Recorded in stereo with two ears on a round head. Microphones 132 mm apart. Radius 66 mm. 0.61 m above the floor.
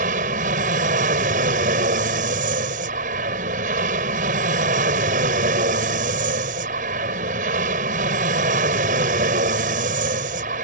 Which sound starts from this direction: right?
An aircraft, at 0.0 s.